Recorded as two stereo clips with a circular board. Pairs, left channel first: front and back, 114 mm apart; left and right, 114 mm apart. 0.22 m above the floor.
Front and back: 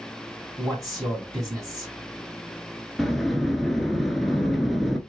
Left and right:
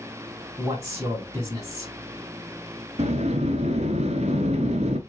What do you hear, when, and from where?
0.6 s a man speaking: 135° right, 1.9 m
3.0 s a sliding door: 90° right, 0.6 m